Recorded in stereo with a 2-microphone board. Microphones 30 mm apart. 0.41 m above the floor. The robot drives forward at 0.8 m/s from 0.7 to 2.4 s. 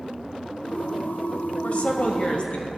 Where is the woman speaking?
50° left (ahead or behind), 1.5 m; by 2.7 s 40° left (ahead or behind), 1.8 m.